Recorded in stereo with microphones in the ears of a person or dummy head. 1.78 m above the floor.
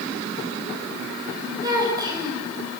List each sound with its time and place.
1.6 s a child speaking: 25° right (ahead or behind), 6.5 m